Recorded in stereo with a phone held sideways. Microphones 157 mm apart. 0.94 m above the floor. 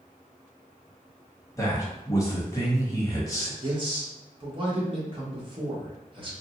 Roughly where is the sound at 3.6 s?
Right.